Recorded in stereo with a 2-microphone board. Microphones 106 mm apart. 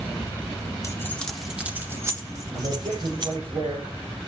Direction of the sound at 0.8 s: 30° left (ahead or behind).